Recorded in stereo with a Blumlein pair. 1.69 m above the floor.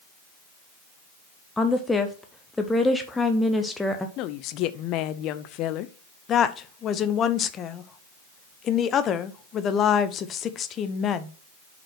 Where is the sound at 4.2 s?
40° left, 0.7 m.